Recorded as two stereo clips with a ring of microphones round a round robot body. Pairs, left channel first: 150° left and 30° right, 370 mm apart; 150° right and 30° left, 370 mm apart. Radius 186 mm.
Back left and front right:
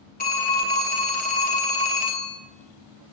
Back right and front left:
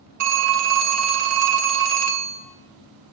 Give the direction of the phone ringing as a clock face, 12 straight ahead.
9 o'clock.